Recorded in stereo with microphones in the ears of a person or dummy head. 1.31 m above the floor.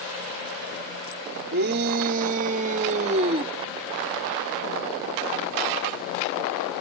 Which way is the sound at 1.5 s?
55° right (ahead or behind).